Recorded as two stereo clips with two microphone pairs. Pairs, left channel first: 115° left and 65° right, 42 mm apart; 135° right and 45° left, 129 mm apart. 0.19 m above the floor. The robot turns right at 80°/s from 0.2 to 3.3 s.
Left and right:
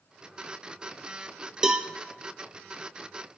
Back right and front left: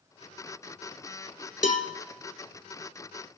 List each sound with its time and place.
1.6 s a cowbell: 140° right, 0.6 m; by 1.9 s 120° right, 0.6 m